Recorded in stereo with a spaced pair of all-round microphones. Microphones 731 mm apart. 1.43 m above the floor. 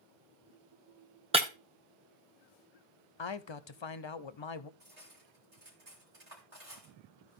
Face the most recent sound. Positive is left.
turn(degrees=-60)  # may be behind; listen again after turning